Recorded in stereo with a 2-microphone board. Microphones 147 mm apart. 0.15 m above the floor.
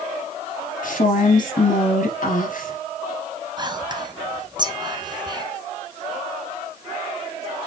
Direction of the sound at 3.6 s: 30° right (ahead or behind).